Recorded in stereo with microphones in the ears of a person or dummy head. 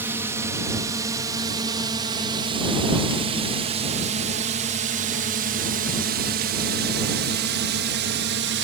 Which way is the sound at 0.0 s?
10° right (ahead or behind).